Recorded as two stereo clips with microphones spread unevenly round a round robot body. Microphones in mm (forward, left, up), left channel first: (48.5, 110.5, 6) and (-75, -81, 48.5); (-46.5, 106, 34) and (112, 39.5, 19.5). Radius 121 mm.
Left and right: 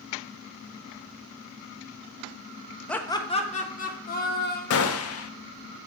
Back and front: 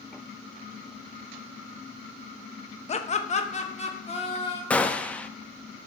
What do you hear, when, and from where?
2.9 s laughter: 125° left, 0.9 m; by 4.6 s 100° left, 2.5 m
4.7 s a gunshot: 70° left, 0.7 m